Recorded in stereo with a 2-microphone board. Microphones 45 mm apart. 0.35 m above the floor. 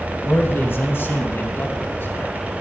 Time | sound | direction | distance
0.2 | a man speaking | 55° left (ahead or behind) | 2.5 m